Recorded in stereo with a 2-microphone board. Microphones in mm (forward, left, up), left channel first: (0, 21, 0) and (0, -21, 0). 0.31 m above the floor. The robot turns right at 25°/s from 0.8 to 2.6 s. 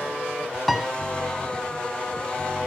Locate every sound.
0.7 s a piano: 5° left (ahead or behind), 1.2 m